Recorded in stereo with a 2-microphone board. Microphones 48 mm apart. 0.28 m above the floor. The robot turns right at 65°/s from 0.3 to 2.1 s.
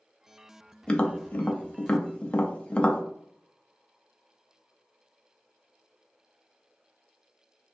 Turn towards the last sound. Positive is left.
turn(degrees=25)  # may be behind; listen again after turning